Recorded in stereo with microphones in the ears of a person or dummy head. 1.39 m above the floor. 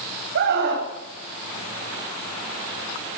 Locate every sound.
0.3 s a scream: 60° right (ahead or behind), 9.5 m